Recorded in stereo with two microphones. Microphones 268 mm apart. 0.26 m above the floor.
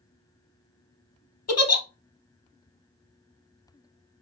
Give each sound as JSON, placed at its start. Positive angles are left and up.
{"t": 1.5, "sound": "a giggle", "side_deg": 65, "distance_m": 0.7}